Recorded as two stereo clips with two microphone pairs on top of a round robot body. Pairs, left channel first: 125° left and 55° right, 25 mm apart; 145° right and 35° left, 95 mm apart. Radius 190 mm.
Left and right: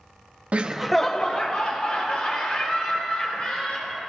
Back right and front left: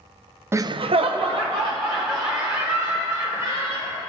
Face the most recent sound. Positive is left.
turn(degrees=75)